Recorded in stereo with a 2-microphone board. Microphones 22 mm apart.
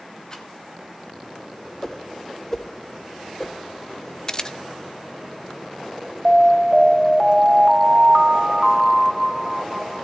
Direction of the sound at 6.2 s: 20° right (ahead or behind).